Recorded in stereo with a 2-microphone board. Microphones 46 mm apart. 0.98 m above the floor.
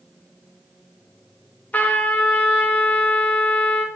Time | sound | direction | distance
1.7 | a trumpet | 35° left (ahead or behind) | 0.8 m